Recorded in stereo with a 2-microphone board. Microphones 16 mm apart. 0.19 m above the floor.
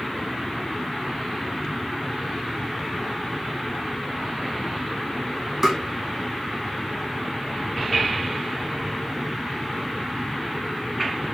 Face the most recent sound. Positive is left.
turn(degrees=-25)  # may be behind; listen again after turning